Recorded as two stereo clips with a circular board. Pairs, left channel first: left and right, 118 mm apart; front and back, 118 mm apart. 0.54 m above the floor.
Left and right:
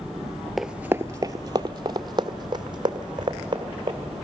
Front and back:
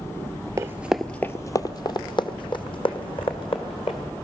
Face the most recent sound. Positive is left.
turn(degrees=-40)